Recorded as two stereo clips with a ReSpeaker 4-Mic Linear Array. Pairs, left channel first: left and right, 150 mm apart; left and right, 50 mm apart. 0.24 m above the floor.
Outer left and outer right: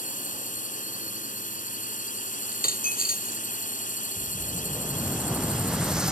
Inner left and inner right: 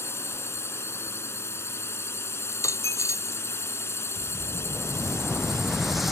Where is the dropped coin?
75° left (ahead or behind).